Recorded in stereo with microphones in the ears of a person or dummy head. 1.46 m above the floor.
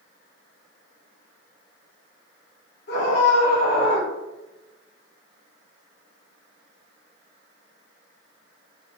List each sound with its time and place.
2.9 s a scream: 65° left (ahead or behind), 1.6 m